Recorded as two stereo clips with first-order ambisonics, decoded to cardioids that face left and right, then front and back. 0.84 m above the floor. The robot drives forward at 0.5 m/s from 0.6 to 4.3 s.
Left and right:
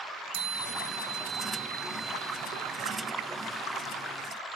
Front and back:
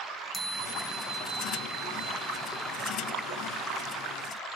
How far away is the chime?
About 1.9 m.